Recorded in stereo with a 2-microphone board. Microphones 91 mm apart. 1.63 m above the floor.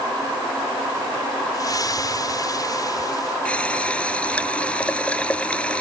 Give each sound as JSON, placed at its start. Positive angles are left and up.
{"t": 1.5, "sound": "a splash", "side_deg": 45}
{"t": 3.5, "sound": "a running tap", "side_deg": 15}